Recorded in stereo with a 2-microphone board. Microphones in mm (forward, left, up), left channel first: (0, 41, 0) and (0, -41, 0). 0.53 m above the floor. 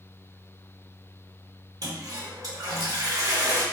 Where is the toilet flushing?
50° right (ahead or behind), 1.2 m.